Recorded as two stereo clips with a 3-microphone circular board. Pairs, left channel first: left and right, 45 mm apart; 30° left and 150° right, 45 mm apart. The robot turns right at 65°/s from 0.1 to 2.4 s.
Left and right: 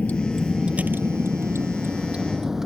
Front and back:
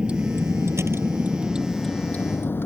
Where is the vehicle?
140° left; by 2.7 s 10° right.